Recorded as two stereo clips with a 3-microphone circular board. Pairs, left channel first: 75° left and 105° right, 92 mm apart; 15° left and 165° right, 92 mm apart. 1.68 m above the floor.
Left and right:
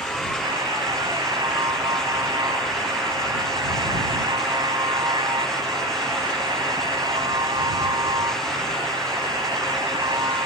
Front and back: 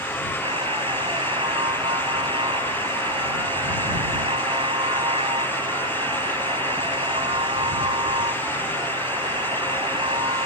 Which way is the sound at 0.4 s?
145° right.